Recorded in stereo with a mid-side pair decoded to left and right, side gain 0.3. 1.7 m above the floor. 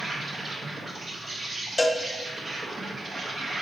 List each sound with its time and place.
0.0 s an insect: 60° right, 1.4 m
1.8 s a cowbell: 25° left, 0.5 m